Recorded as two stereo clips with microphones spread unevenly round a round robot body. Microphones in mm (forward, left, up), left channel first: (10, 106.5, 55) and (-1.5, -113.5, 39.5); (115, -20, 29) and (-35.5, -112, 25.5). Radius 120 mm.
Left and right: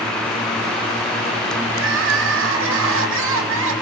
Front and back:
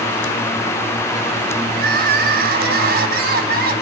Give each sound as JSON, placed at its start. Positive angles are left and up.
{"t": 1.7, "sound": "crying", "azimuth_deg": -120, "distance_m": 3.5}